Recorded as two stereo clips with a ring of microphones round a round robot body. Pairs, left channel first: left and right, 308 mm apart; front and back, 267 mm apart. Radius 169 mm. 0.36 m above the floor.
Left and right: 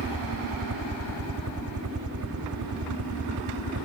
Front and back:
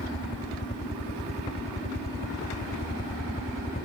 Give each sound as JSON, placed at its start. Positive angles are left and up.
{"t": 0.0, "sound": "a helicopter", "azimuth_deg": -65}